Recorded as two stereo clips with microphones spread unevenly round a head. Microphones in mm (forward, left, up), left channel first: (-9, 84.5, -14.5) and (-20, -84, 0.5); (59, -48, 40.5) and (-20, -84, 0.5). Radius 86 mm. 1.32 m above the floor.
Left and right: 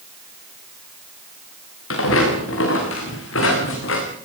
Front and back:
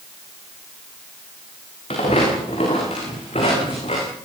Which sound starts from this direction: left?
Footsteps, at 1.9 s.